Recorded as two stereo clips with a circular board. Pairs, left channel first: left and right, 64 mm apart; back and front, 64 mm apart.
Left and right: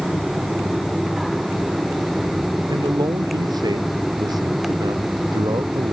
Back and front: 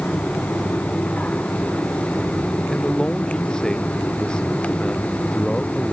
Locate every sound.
2.7 s a man speaking: 100° right; by 5.9 s 105° right